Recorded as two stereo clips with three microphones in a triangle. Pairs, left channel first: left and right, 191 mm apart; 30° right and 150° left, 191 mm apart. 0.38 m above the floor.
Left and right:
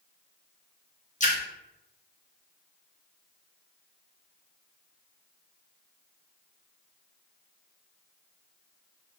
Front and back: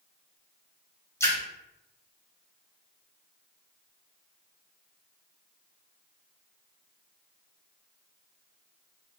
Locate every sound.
1.2 s a splash: 45° left, 0.8 m